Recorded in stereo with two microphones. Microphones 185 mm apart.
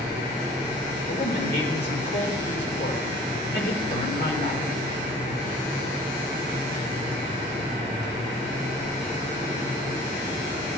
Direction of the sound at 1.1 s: 60° left (ahead or behind).